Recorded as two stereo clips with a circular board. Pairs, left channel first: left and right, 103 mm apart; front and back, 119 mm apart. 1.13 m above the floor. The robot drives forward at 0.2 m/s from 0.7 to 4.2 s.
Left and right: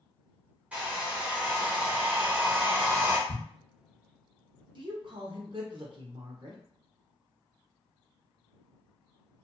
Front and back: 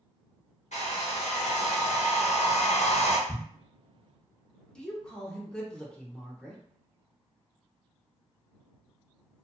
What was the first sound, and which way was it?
A hair dryer, 15° right.